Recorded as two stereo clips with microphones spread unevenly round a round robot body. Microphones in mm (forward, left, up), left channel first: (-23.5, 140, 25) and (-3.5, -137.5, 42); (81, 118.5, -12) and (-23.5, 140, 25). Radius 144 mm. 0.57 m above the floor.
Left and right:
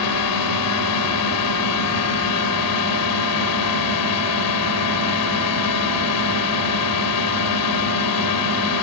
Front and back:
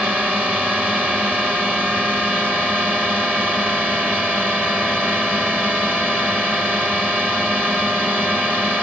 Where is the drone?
80° left.